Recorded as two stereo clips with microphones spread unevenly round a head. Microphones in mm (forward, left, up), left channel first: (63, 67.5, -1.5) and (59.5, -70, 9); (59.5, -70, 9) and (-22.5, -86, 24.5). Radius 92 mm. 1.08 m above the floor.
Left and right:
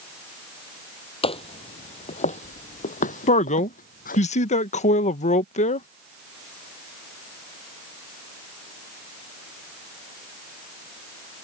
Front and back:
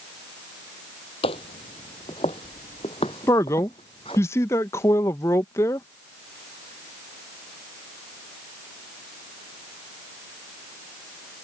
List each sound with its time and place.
1.2 s footsteps: 45° left; by 4.2 s 75° left
3.3 s a man speaking: 65° left